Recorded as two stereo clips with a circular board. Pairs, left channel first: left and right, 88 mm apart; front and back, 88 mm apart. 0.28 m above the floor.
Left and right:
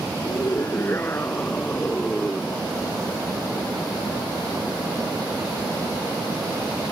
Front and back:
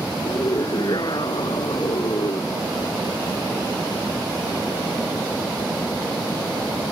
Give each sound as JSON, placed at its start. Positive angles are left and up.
{"t": 0.2, "sound": "a scream", "azimuth_deg": 35}